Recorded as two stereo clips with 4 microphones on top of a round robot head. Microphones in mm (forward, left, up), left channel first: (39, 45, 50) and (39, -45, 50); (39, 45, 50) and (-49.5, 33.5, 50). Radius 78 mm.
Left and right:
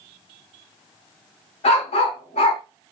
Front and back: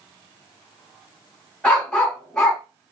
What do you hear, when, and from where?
1.6 s a dog barking: 85° left, 1.9 m